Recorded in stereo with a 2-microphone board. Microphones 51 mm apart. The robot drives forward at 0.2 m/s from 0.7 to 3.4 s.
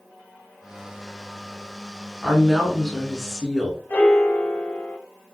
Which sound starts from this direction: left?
A piano, at 3.9 s.